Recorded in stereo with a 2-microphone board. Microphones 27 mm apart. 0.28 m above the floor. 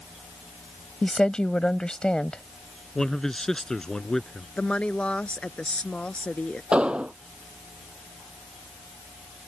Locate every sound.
1.0 s a woman speaking: 35° left (ahead or behind)
3.0 s a man speaking: 20° left (ahead or behind)
4.6 s a woman speaking: 50° left (ahead or behind)
6.7 s an explosion: 45° right (ahead or behind)